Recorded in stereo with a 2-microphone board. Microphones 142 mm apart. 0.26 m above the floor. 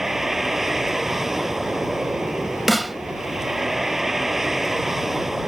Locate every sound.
0.0 s a vehicle: 5° right (ahead or behind)
2.7 s a snare drum: centre (ahead or behind)